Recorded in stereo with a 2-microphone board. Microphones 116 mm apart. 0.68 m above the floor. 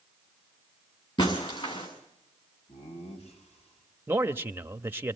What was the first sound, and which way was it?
Breaking glass, 45° left (ahead or behind).